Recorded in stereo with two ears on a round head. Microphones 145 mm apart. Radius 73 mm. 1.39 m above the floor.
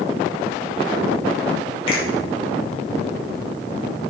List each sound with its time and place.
1.9 s a finger snap: 35° left (ahead or behind), 5 m